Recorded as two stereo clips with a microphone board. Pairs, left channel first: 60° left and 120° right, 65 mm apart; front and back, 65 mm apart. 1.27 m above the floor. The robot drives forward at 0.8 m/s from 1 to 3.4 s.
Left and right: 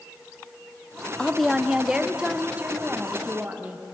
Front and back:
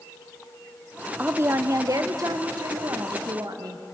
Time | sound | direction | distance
1.2 | a woman speaking | 130° left | 0.6 m